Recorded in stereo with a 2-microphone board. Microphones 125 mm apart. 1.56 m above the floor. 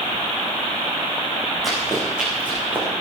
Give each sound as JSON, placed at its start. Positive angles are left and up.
{"t": 1.6, "sound": "running footsteps", "side_deg": 0, "distance_m": 7.5}